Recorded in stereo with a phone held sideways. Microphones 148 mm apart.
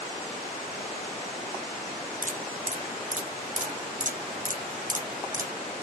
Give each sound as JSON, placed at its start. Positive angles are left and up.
{"t": 2.2, "sound": "dripping", "side_deg": -60, "distance_m": 1.7}